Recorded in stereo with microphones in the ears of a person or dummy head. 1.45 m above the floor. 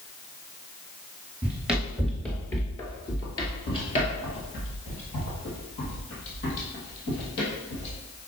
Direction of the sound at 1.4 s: 10° right (ahead or behind).